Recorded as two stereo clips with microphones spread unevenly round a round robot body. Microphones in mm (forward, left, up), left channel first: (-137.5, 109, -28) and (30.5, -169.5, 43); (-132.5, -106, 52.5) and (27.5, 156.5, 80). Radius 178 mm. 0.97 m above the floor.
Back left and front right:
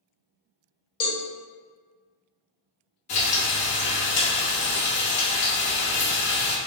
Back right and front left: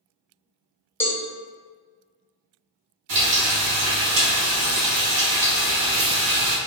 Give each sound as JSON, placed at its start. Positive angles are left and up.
{"t": 1.0, "sound": "a cowbell", "azimuth_deg": 165, "distance_m": 0.9}
{"t": 3.1, "sound": "frying", "azimuth_deg": 45, "distance_m": 0.8}